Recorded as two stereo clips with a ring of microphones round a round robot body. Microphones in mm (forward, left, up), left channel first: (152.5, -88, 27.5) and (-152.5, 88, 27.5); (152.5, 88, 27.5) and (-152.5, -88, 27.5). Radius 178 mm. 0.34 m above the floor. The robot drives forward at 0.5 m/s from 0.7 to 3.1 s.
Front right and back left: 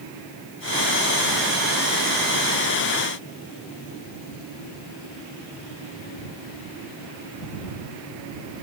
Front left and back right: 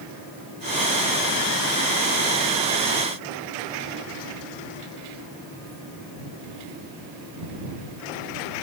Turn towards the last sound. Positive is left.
No sound to turn to.